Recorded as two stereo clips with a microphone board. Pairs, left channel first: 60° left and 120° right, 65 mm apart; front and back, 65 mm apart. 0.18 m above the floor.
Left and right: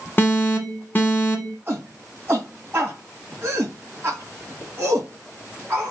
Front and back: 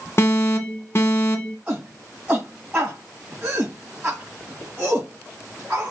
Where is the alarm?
15° left, 1.0 m.